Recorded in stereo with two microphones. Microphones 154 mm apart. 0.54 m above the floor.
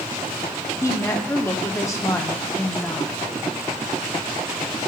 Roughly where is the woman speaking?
Centre.